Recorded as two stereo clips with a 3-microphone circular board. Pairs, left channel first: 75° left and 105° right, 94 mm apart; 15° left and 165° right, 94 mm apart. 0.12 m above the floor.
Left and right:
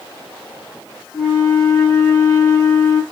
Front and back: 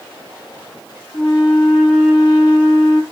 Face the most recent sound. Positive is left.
turn(degrees=50)